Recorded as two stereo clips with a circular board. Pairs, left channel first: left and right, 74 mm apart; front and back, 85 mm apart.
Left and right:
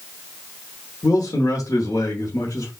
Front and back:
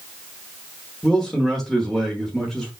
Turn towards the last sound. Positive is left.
turn(degrees=85)